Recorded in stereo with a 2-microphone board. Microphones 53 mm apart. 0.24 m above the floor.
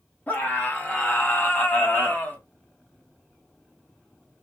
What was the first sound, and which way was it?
A scream, 30° left (ahead or behind).